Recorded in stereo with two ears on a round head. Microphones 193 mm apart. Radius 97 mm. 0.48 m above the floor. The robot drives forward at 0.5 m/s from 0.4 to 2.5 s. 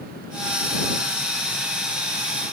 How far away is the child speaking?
No child speaking in this recording.